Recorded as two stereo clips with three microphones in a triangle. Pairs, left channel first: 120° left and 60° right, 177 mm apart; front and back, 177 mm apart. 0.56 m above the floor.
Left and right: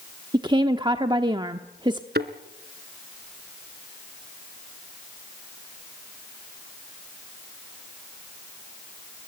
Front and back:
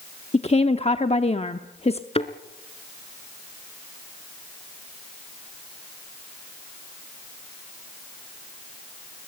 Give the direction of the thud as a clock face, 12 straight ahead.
2 o'clock.